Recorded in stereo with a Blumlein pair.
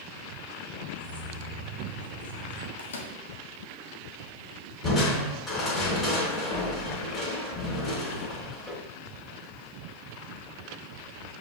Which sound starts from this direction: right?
Keys jangling, at 0.9 s.